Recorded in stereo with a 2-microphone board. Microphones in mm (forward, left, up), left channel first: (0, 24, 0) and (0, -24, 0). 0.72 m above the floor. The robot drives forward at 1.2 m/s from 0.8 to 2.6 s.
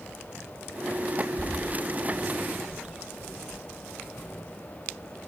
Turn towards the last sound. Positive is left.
turn(degrees=-20)  # may be behind; listen again after turning